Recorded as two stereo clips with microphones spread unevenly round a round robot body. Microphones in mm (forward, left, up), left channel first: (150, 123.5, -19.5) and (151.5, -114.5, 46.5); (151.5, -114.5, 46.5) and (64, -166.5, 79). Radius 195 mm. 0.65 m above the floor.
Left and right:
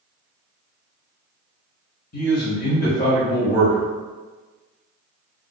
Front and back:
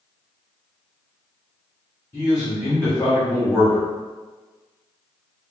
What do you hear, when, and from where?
2.1 s a man speaking: 90° left, 1.0 m